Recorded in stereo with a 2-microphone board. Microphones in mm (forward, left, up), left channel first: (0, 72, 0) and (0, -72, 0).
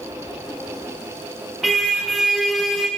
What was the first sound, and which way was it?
A car horn, centre (ahead or behind).